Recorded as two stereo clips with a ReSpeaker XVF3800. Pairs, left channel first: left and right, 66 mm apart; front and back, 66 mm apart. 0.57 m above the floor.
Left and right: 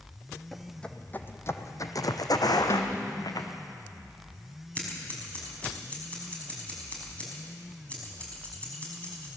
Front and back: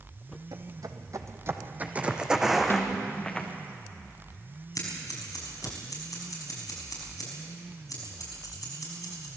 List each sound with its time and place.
0.5 s footsteps: 175° left, 1.5 m; by 3.5 s 80° left, 2.5 m
2.7 s a snare drum: 50° left, 1.9 m
4.8 s scissors: 20° left, 5.5 m